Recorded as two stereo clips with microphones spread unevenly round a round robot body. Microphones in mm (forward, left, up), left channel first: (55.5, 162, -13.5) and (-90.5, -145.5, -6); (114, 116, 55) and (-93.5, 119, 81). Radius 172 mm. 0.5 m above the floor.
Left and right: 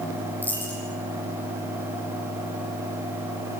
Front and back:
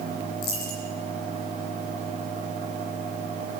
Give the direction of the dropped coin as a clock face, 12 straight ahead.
1 o'clock.